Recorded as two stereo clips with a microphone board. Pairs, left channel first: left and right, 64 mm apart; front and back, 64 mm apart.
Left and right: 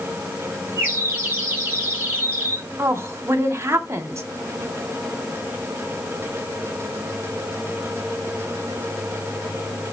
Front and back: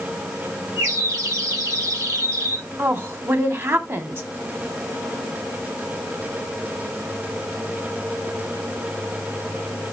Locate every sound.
0.8 s a bird: 150° right, 5.5 m
2.8 s a woman speaking: 135° right, 2 m